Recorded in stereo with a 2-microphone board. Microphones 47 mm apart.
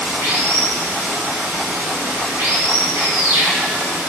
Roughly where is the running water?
Right.